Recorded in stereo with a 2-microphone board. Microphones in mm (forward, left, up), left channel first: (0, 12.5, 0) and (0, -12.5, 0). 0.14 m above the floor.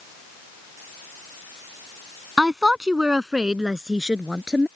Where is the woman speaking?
20° right (ahead or behind); by 4.7 s 25° right (ahead or behind).